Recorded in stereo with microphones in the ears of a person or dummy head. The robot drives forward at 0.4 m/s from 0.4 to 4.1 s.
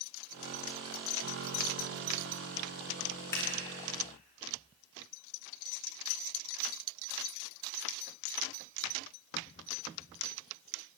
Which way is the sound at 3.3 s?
20° left (ahead or behind).